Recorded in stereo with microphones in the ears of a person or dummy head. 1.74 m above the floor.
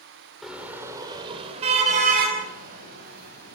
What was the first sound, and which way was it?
A car horn, centre (ahead or behind).